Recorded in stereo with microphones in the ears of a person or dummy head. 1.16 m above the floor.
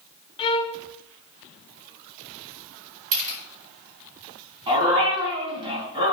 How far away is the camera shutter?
About 4.5 m.